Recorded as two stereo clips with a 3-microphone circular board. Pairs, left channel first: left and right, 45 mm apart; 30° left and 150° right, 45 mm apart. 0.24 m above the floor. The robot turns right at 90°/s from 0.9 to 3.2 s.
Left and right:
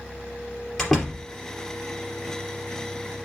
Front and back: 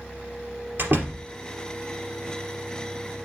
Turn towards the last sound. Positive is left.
turn(degrees=25)